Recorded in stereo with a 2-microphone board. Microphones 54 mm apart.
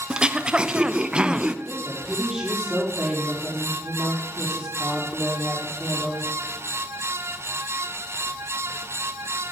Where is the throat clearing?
20° right (ahead or behind), 0.6 m.